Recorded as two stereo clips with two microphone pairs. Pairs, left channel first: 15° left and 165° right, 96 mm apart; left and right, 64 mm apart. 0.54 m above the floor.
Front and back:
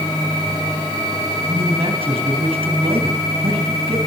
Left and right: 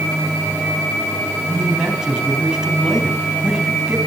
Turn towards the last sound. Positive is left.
turn(degrees=-170)